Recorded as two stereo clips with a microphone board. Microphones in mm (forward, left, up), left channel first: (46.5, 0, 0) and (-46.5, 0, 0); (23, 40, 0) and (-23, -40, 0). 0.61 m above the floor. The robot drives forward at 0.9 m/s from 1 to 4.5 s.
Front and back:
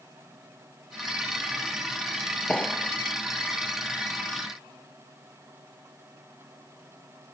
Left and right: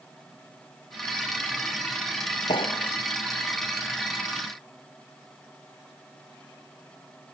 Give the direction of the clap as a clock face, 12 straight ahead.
9 o'clock.